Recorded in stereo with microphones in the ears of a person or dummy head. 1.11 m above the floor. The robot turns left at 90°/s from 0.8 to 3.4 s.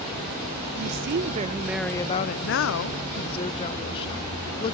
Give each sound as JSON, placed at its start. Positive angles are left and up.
{"t": 0.8, "sound": "a woman speaking", "azimuth_deg": -95, "distance_m": 0.5}